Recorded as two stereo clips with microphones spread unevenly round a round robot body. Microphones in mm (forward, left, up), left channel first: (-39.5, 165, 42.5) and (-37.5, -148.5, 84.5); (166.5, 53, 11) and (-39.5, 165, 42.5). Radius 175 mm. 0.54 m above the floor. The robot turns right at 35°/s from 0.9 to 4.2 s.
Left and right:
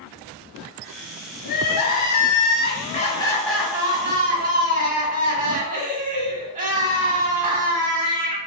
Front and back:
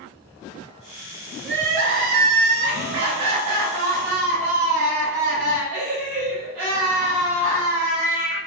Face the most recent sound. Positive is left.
turn(degrees=-155)